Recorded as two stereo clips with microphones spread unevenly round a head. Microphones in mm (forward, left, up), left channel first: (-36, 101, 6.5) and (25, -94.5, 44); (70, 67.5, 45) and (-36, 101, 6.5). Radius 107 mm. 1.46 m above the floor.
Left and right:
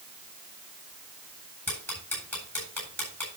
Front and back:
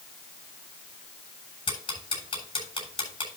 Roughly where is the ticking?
Ahead left.